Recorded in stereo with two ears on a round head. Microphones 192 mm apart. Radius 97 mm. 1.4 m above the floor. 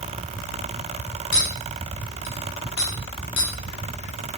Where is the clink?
60° left (ahead or behind), 2.5 m.